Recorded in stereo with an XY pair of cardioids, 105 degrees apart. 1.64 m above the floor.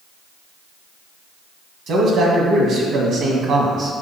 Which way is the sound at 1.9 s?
70° right.